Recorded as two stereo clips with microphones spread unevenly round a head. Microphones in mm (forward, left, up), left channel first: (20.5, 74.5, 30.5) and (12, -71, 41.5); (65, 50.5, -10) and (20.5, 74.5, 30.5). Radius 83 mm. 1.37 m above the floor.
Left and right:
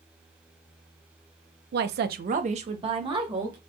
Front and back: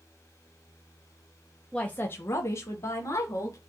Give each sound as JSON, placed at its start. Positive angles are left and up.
{"t": 1.7, "sound": "a woman speaking", "azimuth_deg": -100, "distance_m": 0.5}